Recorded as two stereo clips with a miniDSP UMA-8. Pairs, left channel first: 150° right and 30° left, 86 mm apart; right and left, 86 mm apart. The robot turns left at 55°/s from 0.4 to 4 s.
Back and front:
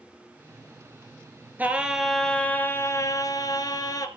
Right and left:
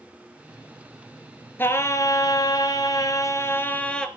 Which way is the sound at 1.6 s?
35° right.